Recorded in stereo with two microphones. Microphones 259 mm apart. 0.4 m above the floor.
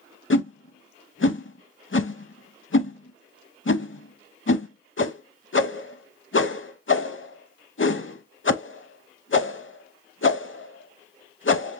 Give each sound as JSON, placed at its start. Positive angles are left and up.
{"t": 0.3, "sound": "a whoosh", "side_deg": 55, "distance_m": 0.6}